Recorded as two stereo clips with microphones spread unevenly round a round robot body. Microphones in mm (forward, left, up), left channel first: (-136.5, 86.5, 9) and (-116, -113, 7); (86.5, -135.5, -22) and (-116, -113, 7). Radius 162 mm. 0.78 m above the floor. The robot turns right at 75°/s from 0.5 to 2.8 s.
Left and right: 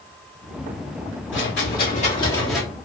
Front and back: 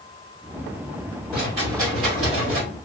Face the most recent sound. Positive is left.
turn(degrees=-155)